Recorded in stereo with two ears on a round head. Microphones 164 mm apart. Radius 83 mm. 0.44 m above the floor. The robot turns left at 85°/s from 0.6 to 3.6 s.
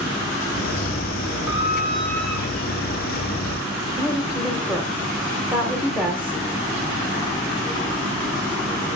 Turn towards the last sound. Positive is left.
turn(degrees=-10)  # may be behind; listen again after turning